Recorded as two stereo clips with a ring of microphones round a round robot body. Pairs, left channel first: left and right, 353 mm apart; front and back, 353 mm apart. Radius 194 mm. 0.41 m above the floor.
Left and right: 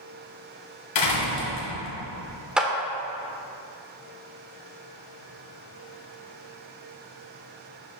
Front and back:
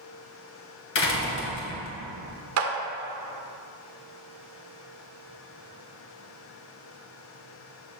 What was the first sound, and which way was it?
A door slam, 55° left.